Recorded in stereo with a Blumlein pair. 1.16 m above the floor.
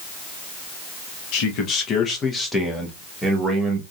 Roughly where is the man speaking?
Ahead left.